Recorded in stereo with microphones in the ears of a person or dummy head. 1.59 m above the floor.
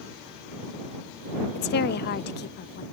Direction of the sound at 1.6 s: 50° left (ahead or behind).